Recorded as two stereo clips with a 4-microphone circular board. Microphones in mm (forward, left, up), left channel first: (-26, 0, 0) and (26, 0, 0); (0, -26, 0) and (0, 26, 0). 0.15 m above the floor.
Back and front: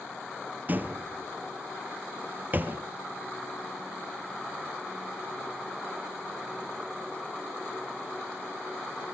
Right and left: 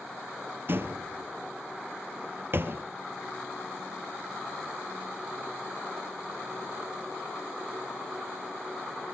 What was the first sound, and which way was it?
A door slam, 50° left.